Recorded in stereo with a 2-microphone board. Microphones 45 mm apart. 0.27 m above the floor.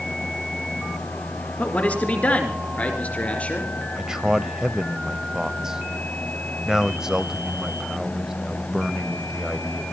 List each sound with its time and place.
1.6 s a man speaking: 35° left (ahead or behind), 4 m; by 3.7 s 30° left (ahead or behind), 5 m
4.0 s a man speaking: 15° right (ahead or behind), 0.9 m